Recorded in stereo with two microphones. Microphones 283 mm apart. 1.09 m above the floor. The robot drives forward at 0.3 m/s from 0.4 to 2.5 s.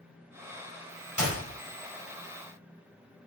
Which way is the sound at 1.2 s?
80° right.